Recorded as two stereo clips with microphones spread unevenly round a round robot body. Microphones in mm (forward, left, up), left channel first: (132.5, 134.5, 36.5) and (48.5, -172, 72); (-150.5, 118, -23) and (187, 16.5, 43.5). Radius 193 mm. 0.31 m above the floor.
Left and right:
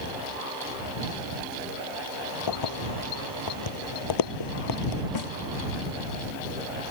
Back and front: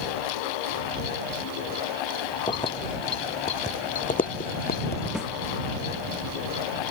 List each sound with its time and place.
2.5 s keys jangling: 85° left; by 5.0 s 100° left
5.2 s a snare drum: 70° left